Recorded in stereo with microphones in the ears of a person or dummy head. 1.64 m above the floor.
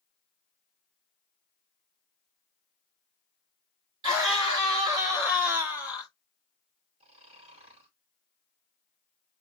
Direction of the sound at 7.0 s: 40° right (ahead or behind).